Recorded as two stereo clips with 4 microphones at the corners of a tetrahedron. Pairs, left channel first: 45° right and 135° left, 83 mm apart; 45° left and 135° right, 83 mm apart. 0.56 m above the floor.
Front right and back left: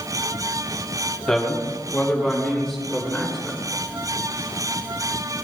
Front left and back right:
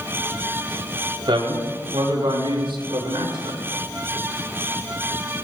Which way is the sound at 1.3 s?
130° right.